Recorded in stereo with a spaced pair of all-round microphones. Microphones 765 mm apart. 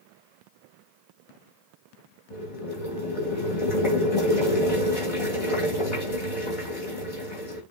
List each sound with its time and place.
2.3 s boiling: 45° left (ahead or behind), 5 m